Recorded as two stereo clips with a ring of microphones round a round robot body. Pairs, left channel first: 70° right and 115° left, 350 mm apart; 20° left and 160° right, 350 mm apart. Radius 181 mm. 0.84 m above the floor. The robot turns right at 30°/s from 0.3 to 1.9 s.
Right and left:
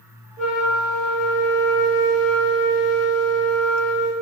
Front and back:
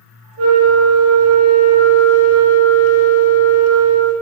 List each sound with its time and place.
0.4 s a flute: 115° right, 1.2 m; by 4.1 s 70° right, 1.2 m